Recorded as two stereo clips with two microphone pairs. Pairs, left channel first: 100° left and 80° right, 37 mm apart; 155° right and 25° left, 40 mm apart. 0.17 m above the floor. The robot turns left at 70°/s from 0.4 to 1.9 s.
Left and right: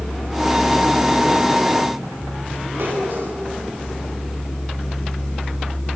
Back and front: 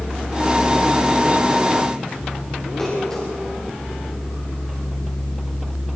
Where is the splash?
85° right, 10 m.